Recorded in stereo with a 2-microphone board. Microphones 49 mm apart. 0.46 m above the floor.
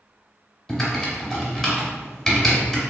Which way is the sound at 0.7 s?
10° left (ahead or behind).